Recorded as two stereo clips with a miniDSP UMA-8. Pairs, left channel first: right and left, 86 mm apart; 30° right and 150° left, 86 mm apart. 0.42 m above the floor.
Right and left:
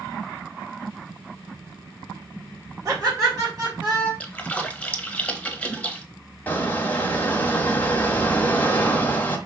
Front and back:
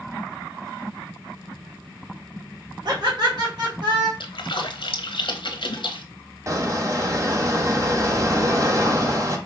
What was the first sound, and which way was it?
Laughter, 135° left.